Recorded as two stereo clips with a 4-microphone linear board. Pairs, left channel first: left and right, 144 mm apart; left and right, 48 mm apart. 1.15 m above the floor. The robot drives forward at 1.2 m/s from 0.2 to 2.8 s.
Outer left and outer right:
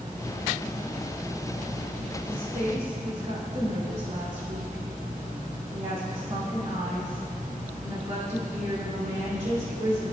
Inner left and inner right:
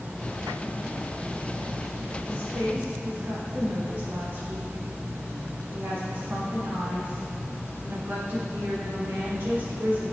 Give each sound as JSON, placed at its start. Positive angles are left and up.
{"t": 2.2, "sound": "a woman speaking", "side_deg": -65, "distance_m": 2.5}